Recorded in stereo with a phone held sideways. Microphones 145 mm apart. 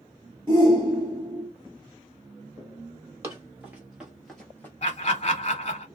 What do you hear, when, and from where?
0.5 s a shout: 30° right (ahead or behind), 1.2 m
3.2 s running footsteps: 20° right (ahead or behind), 1.7 m; by 4.7 s 15° left (ahead or behind), 1.3 m
4.8 s laughter: 40° left (ahead or behind), 1.4 m